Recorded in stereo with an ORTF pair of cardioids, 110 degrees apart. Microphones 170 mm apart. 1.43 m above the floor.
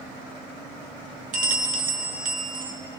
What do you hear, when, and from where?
1.3 s a bell: 50° right, 1.0 m